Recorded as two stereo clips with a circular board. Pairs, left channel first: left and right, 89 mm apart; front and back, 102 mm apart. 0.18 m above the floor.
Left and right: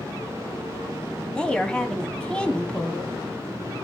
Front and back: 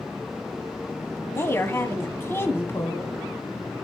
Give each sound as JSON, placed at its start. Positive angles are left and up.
{"t": 1.4, "sound": "a woman speaking", "azimuth_deg": 25, "distance_m": 1.1}